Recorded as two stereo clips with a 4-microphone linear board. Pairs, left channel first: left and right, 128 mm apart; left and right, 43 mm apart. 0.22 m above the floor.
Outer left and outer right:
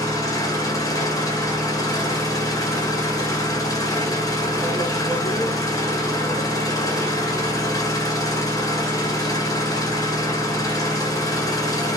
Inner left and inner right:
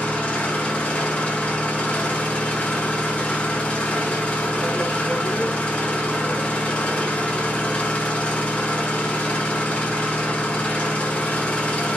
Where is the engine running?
25° left (ahead or behind), 0.9 m.